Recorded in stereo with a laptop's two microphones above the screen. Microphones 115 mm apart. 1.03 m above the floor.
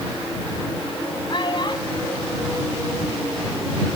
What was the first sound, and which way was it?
A child speaking, 50° left (ahead or behind).